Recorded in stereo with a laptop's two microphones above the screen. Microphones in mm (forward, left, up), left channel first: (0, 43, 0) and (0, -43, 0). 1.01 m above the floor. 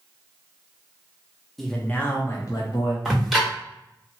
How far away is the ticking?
About 1.3 m.